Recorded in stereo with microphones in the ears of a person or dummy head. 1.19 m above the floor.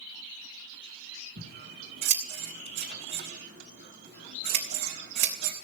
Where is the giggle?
I don't hear a giggle.